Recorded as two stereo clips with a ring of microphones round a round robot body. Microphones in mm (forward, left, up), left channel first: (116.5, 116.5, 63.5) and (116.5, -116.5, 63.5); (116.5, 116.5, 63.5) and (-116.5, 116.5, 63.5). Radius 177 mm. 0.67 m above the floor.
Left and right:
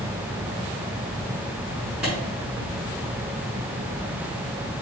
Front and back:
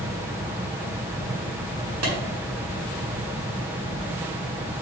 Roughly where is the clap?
Behind.